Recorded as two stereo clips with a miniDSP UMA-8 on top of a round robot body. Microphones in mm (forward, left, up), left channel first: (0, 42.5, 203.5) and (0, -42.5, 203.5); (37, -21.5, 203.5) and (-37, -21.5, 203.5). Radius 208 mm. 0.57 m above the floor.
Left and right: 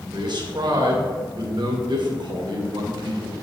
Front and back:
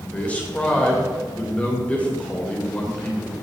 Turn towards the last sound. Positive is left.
turn(degrees=-70)